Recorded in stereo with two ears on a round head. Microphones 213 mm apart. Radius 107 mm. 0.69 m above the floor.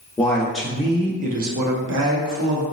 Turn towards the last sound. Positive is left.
turn(degrees=-55)  # may be behind; listen again after turning